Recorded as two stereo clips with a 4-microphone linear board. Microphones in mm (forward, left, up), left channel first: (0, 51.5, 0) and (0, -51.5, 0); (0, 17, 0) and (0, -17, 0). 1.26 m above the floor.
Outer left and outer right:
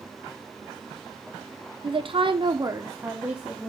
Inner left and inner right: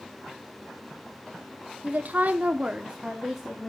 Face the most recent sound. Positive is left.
turn(degrees=-5)  # may be behind; listen again after turning